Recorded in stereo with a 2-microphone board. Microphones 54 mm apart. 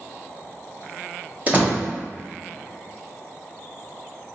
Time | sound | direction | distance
1.5 | a door slam | 35° right (ahead or behind) | 1.2 m